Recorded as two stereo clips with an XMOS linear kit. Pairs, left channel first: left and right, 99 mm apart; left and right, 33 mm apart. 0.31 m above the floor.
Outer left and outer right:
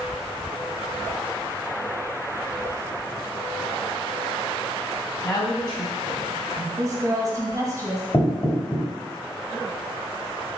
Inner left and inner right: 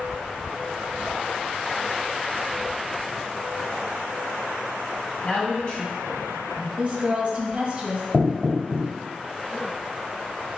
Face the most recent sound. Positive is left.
turn(degrees=35)  # may be behind; listen again after turning